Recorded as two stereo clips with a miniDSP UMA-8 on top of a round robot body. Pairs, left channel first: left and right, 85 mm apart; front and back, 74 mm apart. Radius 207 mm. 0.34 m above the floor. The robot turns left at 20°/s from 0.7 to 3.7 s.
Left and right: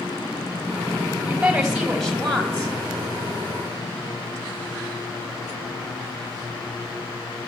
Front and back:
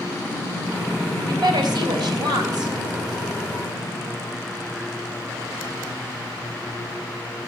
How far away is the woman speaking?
About 3.5 m.